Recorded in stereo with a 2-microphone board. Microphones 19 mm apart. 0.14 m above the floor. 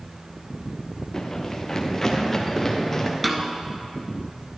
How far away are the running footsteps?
About 1.1 m.